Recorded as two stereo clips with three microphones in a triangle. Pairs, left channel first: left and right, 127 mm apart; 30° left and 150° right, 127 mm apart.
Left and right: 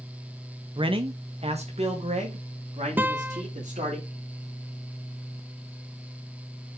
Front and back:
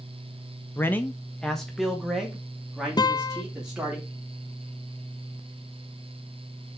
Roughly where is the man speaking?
Ahead right.